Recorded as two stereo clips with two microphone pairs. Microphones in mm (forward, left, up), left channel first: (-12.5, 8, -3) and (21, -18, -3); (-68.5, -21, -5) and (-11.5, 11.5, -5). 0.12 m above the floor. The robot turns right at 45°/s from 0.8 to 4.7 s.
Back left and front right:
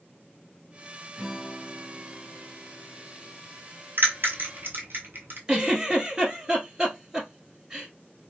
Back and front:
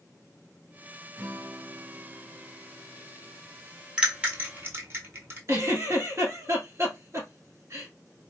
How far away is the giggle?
About 1.3 m.